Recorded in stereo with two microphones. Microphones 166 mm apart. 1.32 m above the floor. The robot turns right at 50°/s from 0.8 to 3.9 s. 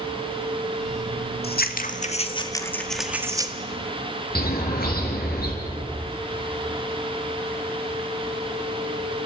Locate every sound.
1.4 s scissors: 105° left, 1.7 m; by 3.5 s 150° right, 1.7 m
4.3 s a bird: 65° left (ahead or behind), 5 m